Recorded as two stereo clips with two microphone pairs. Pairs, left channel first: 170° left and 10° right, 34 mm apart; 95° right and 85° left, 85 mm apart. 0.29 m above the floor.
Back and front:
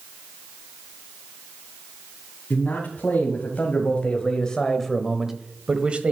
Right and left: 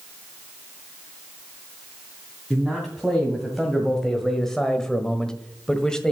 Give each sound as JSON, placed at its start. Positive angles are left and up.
{"t": 2.5, "sound": "a man speaking", "azimuth_deg": 175, "distance_m": 2.5}